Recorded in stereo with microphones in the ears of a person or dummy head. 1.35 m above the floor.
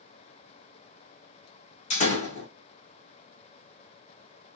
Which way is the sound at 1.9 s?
45° left (ahead or behind).